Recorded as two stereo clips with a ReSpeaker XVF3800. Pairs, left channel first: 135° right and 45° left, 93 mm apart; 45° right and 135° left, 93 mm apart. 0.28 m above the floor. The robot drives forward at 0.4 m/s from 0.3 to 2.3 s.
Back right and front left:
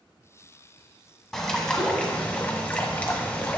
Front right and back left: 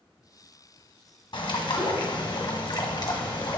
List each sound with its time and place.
1.3 s a bird: 45° right, 1.5 m; by 3.6 s 60° right, 1.3 m